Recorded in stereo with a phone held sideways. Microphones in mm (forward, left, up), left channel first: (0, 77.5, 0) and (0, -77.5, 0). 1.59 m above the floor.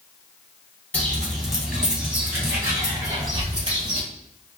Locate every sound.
0.9 s footsteps: 10° left (ahead or behind), 1.9 m; by 4.0 s 40° right (ahead or behind), 2 m